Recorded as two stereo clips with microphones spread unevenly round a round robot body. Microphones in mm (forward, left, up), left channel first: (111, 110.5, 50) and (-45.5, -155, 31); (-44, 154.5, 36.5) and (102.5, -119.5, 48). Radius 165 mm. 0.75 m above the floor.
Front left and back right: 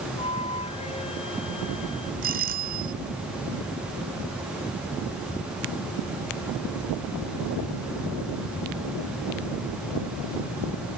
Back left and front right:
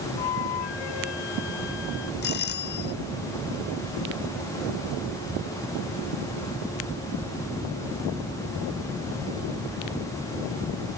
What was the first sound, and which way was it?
A flute, 135° left.